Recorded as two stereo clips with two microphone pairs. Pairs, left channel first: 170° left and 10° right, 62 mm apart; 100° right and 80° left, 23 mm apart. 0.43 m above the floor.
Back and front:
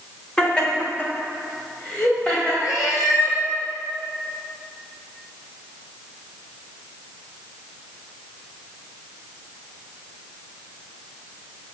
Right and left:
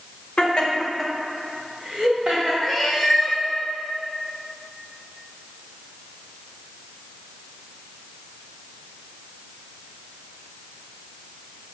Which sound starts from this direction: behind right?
Laughter, at 0.4 s.